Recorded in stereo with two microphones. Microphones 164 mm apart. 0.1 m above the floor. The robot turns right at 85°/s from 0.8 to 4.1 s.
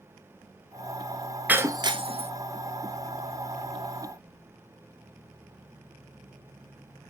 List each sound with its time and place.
1.5 s breaking glass: 10° right (ahead or behind), 0.5 m; by 2.3 s 40° right (ahead or behind), 0.5 m